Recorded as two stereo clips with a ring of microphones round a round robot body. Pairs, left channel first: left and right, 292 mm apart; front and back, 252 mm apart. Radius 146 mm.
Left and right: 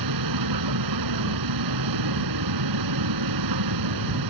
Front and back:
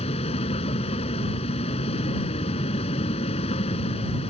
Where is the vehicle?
70° right.